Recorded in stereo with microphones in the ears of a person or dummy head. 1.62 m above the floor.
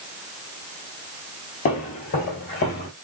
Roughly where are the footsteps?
Left.